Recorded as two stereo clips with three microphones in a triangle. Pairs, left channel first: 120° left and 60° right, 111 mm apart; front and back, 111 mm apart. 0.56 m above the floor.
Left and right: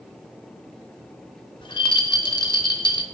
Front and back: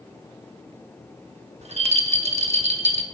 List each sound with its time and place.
1.6 s a rattle: 165° left, 0.7 m